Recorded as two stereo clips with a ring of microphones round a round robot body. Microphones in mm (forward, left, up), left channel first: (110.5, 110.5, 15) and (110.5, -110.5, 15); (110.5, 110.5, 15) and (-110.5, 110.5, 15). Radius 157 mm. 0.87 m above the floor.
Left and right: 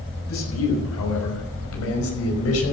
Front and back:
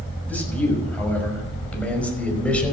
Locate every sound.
0.3 s a man speaking: 85° left, 6.5 m